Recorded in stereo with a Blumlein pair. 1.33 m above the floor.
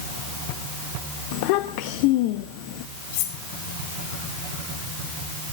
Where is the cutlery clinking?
50° left, 3 m.